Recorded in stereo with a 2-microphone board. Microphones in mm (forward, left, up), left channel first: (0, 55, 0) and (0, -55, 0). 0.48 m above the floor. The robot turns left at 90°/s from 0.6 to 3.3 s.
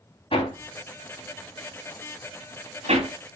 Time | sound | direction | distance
0.3 | hammering | 55° left (ahead or behind) | 3 m